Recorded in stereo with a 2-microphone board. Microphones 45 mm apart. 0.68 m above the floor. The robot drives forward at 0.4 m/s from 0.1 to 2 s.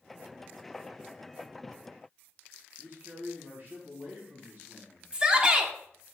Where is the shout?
25° right (ahead or behind), 1.3 m.